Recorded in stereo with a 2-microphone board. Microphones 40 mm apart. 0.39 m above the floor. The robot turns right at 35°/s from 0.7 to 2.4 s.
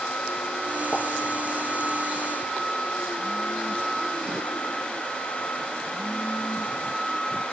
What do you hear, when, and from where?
0.9 s a pop: 20° left (ahead or behind), 4 m; by 1.0 s 15° left (ahead or behind), 4 m